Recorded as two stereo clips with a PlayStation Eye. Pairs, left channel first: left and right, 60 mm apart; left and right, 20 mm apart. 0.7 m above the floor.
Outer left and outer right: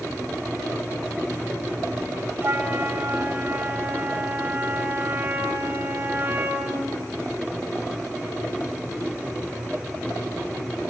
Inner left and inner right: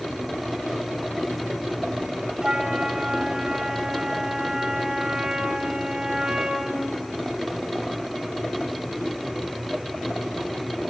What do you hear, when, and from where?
2.4 s a flute: 35° right (ahead or behind), 1.8 m